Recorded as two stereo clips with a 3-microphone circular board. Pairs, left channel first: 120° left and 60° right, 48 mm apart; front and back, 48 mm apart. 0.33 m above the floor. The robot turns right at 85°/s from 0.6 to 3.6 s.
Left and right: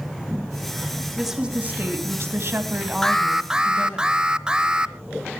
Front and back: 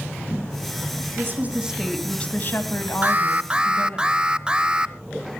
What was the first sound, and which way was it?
A woman speaking, 150° right.